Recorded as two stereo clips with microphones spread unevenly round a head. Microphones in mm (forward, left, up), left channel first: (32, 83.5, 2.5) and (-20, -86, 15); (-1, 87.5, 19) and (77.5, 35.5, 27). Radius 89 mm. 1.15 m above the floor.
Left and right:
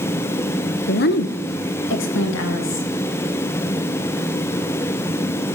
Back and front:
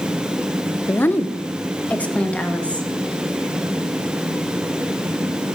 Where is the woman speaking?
85° left, 0.9 m; by 2.9 s 70° left, 2.5 m.